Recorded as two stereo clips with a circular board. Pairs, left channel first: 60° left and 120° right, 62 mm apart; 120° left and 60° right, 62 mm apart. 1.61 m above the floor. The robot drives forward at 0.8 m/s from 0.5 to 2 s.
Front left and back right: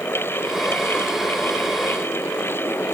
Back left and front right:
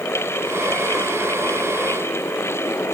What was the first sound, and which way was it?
Only background noise.